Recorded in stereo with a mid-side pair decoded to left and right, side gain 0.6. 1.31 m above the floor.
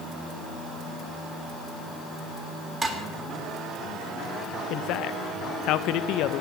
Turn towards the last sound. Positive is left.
turn(degrees=65)